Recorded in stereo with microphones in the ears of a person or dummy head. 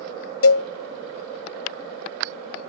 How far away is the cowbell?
About 0.8 m.